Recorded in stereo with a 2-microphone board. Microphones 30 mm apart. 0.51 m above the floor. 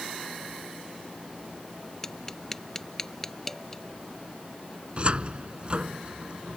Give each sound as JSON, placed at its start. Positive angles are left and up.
{"t": 2.0, "sound": "tapping", "side_deg": 15}
{"t": 5.0, "sound": "a cupboard door", "side_deg": -35}